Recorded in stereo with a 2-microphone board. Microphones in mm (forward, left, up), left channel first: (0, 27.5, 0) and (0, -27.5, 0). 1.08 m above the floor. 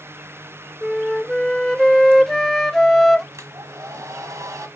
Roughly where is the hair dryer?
Right.